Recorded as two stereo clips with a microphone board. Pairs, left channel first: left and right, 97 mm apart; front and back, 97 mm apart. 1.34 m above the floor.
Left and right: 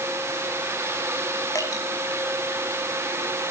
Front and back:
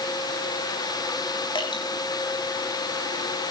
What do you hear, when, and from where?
1.6 s dripping: 35° left, 5 m